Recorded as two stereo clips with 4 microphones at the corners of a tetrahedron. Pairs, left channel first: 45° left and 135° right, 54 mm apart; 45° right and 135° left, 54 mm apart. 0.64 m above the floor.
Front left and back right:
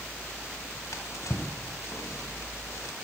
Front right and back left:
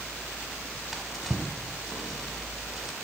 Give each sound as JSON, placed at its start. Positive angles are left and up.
{"t": 0.9, "sound": "a drawer", "azimuth_deg": 50, "distance_m": 1.2}